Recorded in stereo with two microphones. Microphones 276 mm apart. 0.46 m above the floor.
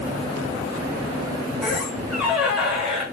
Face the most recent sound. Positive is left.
turn(degrees=0)  # may be behind; listen again after turning